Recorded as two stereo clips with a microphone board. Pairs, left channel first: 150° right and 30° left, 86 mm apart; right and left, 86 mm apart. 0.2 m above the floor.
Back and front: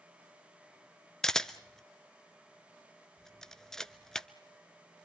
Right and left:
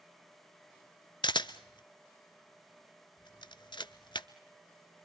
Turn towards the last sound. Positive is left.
turn(degrees=-70)